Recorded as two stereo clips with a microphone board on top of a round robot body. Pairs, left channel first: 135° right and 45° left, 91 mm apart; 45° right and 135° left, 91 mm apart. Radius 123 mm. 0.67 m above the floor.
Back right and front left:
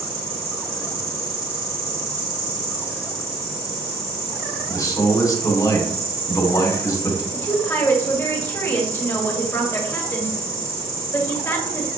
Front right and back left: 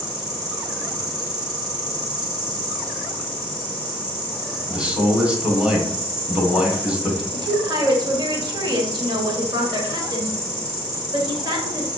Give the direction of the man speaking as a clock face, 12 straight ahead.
5 o'clock.